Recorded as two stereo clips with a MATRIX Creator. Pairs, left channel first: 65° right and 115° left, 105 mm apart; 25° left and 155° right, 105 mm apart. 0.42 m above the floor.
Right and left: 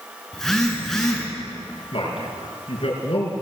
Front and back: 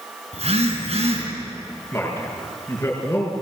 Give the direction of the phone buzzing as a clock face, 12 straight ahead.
5 o'clock.